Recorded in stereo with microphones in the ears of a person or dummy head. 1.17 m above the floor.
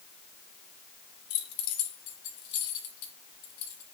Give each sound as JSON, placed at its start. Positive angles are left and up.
{"t": 1.3, "sound": "keys jangling", "side_deg": 70, "distance_m": 1.8}